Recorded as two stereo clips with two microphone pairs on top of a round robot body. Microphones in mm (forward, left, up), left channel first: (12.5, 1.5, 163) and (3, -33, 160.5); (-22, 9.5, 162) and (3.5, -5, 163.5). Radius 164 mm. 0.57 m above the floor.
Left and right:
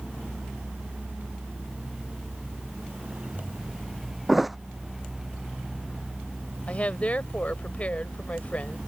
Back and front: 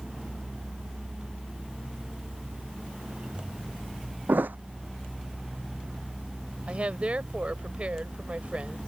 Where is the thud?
20° right.